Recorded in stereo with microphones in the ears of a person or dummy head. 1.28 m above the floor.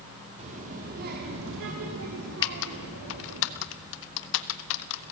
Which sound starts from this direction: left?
Typing on a keyboard, at 2.4 s.